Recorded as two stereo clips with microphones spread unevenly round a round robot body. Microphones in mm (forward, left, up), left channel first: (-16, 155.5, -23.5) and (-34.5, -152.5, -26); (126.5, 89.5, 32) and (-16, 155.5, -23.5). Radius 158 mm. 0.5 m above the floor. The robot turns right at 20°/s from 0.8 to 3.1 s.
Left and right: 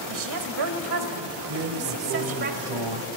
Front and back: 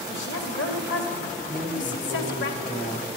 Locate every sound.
0.1 s a woman speaking: 70° right, 2.0 m; by 2.5 s 35° right, 2.0 m
1.5 s a drawer: 125° right, 1.6 m; by 3.0 s 95° right, 1.6 m